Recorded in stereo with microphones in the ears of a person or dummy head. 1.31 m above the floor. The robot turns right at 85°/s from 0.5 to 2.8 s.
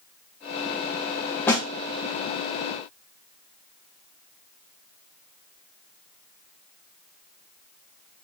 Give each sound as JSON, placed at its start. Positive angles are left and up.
{"t": 1.5, "sound": "a snare drum", "side_deg": 10, "distance_m": 1.0}